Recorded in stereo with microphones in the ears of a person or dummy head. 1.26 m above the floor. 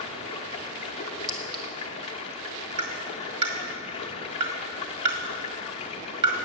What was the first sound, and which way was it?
Running water, 30° left (ahead or behind).